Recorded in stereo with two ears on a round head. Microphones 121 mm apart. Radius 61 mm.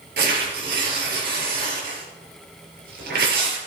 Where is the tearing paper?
90° right, 5.5 m.